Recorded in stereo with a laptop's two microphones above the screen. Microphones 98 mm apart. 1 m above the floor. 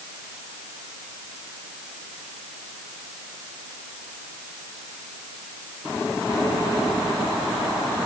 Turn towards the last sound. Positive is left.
No sound to turn to.